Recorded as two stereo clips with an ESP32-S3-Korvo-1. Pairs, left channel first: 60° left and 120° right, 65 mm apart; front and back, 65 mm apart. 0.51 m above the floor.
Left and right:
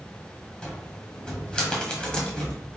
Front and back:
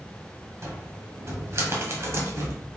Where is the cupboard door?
135° left, 1.3 m.